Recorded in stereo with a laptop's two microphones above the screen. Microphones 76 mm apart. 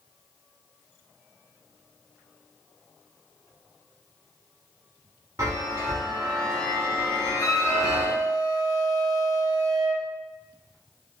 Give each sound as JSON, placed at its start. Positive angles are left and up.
{"t": 5.4, "sound": "a chime", "side_deg": -45, "distance_m": 0.7}
{"t": 7.4, "sound": "a flute", "side_deg": 55, "distance_m": 1.7}